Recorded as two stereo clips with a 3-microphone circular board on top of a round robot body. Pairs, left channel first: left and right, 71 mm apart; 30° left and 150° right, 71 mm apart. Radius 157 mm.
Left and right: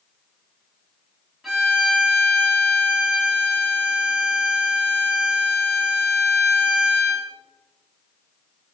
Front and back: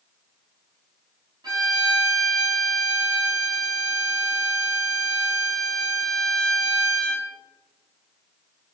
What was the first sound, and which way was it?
A violin, 175° right.